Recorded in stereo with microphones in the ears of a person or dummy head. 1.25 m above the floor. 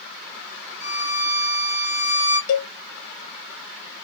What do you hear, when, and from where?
0.8 s a violin: 80° right, 2 m
2.5 s a cowbell: 70° left (ahead or behind), 0.6 m